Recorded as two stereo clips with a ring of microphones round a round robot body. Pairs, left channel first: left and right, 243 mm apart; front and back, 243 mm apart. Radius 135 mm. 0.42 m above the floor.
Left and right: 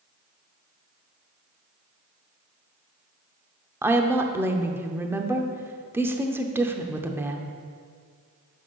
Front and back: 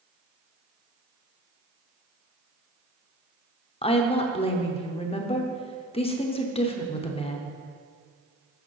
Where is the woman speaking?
20° right, 0.8 m.